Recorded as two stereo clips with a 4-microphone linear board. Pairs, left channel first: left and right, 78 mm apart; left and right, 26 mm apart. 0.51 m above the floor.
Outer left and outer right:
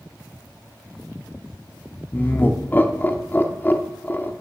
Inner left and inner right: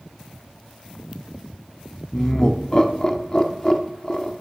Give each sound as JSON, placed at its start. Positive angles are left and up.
{"t": 2.1, "sound": "laughter", "side_deg": 25, "distance_m": 0.8}